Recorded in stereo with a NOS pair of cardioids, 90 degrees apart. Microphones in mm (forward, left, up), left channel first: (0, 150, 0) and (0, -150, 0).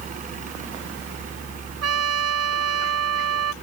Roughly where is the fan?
Ahead right.